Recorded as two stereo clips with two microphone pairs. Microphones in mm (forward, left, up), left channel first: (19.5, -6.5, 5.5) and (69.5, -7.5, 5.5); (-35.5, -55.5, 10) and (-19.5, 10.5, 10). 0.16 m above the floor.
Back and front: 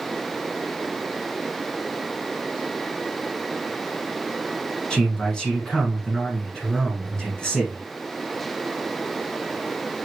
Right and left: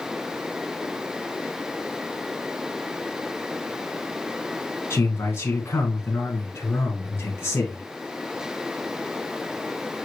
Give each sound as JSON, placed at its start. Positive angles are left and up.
{"t": 4.9, "sound": "a man speaking", "azimuth_deg": -110, "distance_m": 1.4}